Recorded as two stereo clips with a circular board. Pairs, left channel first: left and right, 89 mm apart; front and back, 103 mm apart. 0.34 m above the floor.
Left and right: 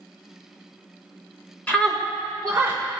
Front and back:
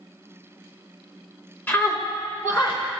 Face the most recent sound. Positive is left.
turn(degrees=-30)